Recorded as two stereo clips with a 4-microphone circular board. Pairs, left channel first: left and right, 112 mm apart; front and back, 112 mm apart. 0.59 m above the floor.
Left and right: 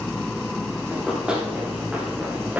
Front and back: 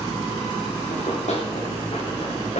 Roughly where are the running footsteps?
Ahead.